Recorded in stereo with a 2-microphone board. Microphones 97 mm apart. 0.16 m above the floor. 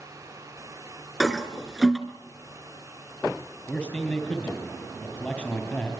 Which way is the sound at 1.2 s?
5° right (ahead or behind).